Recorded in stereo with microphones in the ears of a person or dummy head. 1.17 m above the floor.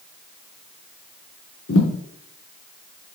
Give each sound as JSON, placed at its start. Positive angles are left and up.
{"t": 1.7, "sound": "a thud", "side_deg": 75, "distance_m": 3.5}